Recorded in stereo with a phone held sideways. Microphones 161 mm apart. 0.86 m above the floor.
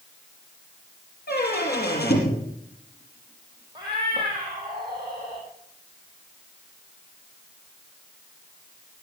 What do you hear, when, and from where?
1.3 s a squeak: 80° left, 5 m
3.8 s a cat meowing: 25° right (ahead or behind), 5 m